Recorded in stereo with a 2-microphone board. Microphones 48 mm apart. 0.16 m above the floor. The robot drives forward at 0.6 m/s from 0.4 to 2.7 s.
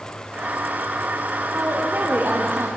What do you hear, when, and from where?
1.5 s a woman speaking: 45° right (ahead or behind), 4.5 m; by 2.7 s 50° right (ahead or behind), 4 m